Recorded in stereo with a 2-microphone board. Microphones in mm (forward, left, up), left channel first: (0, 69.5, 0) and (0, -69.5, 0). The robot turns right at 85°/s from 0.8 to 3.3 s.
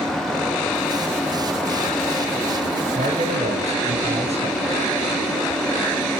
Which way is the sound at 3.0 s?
55° right (ahead or behind).